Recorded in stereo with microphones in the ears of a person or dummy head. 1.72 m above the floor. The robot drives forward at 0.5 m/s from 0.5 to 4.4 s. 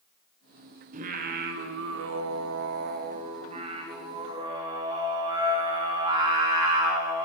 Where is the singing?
40° right (ahead or behind), 0.9 m; by 7.2 s 30° right (ahead or behind), 1.2 m.